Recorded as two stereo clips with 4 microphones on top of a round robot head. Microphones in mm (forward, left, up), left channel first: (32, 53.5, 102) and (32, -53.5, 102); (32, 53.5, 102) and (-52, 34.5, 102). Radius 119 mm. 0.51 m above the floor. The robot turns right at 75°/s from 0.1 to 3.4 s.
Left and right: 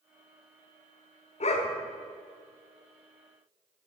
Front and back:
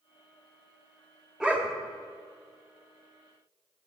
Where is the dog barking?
110° left, 1.1 m; by 1.8 s 135° left, 1.1 m.